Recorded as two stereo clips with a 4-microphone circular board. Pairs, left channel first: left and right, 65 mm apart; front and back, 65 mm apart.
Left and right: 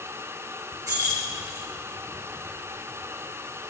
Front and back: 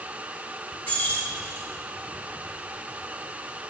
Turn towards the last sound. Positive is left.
turn(degrees=-65)